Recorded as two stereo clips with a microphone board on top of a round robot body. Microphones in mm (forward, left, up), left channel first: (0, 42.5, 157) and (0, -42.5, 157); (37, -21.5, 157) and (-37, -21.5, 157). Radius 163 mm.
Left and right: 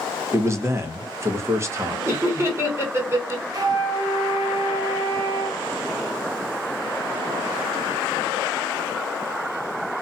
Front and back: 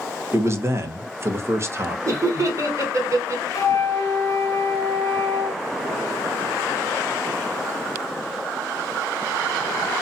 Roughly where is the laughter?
Behind right.